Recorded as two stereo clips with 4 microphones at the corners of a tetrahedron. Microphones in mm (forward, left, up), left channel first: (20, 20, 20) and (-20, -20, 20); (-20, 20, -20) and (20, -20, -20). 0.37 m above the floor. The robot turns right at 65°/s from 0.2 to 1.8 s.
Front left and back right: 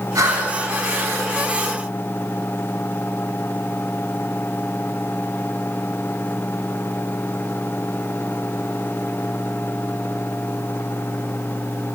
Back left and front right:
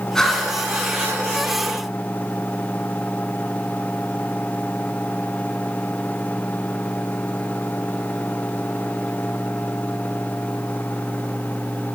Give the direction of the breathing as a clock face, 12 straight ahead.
5 o'clock.